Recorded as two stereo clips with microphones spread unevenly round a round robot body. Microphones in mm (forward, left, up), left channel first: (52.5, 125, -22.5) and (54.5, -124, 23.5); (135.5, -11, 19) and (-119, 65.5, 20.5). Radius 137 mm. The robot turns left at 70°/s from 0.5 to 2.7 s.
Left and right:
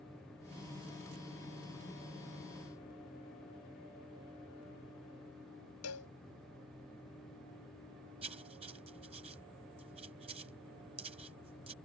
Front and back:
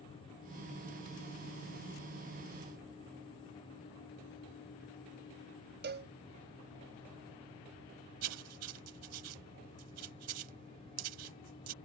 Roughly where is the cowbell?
Behind left.